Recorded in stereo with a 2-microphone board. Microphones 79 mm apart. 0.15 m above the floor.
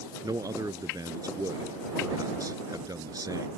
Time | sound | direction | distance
0.2 | a man speaking | 55° right (ahead or behind) | ?